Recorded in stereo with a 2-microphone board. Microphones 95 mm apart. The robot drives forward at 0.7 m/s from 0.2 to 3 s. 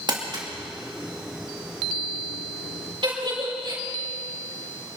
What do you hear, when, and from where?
0.1 s crumpling: 50° right (ahead or behind), 2.5 m; by 0.5 s 45° right (ahead or behind), 2.5 m
3.0 s a giggle: 60° right (ahead or behind), 4 m